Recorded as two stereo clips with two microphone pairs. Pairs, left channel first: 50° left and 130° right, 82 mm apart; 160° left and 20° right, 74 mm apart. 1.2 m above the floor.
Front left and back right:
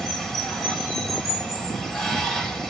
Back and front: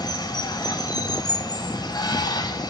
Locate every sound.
0.0 s running water: 135° left, 5.5 m